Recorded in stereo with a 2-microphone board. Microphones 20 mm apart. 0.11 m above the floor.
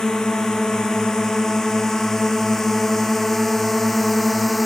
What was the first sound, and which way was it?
A drone, 35° left (ahead or behind).